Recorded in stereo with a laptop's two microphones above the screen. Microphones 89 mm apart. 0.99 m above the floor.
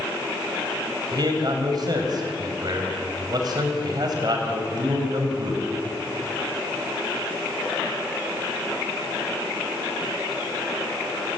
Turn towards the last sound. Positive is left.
turn(degrees=-50)  # may be behind; listen again after turning